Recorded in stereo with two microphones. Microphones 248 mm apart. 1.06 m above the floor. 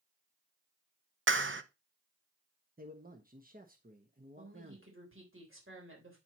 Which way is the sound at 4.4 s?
55° right (ahead or behind).